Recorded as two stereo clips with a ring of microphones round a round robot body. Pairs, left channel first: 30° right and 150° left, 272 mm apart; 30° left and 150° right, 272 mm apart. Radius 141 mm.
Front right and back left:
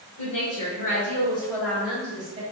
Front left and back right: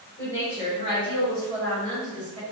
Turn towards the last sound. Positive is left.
turn(degrees=135)